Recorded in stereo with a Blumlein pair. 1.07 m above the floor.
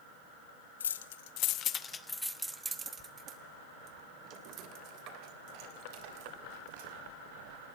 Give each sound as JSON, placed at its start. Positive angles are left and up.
{"t": 0.8, "sound": "keys jangling", "azimuth_deg": 65, "distance_m": 1.2}